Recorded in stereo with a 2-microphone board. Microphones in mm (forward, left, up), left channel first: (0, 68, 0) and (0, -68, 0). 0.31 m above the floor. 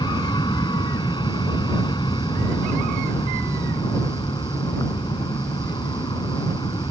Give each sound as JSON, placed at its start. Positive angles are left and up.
{"t": 0.0, "sound": "an aircraft", "side_deg": 35}